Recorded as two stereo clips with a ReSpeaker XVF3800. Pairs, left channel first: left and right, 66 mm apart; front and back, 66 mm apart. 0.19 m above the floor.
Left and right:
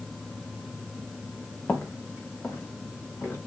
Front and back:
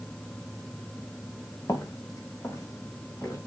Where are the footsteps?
30° left, 2.5 m; by 3.4 s 40° left, 5 m.